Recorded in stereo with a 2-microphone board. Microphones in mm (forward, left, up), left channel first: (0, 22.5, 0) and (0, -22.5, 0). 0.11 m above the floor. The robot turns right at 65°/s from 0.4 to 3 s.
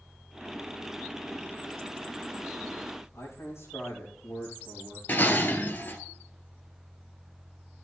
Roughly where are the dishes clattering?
Left.